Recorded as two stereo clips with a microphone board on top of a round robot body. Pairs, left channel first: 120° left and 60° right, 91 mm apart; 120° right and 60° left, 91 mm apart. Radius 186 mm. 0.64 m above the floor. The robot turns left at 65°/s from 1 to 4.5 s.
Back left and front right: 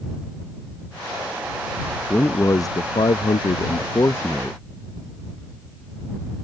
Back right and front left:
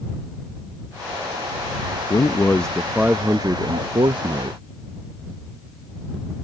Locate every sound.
2.1 s a man speaking: 165° right; by 4.6 s 40° left